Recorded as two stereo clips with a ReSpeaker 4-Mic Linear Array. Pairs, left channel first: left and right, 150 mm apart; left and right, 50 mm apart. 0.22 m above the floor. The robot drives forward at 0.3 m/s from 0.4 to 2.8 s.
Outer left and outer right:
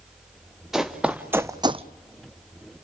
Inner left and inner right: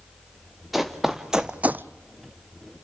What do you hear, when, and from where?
0.7 s running footsteps: 5° right (ahead or behind), 1.6 m; by 1.9 s 50° right (ahead or behind), 0.5 m